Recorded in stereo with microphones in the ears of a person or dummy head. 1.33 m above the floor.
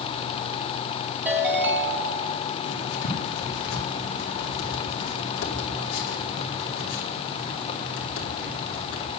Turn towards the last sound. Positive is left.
turn(degrees=80)